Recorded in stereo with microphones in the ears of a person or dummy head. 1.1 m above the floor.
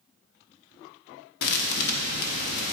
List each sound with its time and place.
1.4 s a thud: 65° left (ahead or behind), 1.1 m